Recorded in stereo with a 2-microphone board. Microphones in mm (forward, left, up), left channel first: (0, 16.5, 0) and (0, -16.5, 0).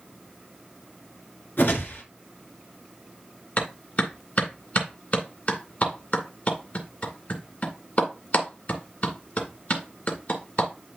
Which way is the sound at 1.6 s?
70° left (ahead or behind).